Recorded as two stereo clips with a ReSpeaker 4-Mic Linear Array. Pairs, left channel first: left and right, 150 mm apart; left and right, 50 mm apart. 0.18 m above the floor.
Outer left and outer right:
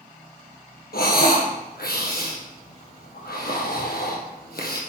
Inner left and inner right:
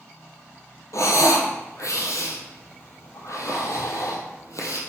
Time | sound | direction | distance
0.9 | breathing | 80° left | 2 m